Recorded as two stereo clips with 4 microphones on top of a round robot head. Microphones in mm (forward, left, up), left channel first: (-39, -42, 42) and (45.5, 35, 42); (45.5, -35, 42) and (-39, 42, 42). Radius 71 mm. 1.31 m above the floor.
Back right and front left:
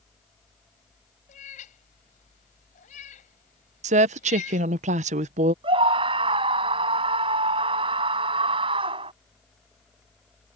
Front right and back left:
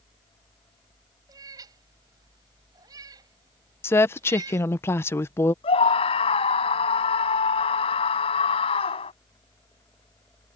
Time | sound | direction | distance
1.3 | a cat meowing | 165° right | ?
3.8 | a woman speaking | 25° left | ?
5.6 | a scream | straight ahead | ?